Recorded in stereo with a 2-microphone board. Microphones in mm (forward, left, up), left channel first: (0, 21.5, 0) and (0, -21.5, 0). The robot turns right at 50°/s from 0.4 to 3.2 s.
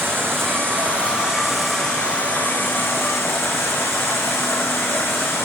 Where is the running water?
60° right, 6 m; by 5.5 s 80° left, 6 m.